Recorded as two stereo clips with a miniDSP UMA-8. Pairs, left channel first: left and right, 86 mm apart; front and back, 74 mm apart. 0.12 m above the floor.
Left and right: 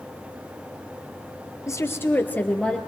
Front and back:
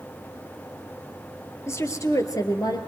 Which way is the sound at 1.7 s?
45° left.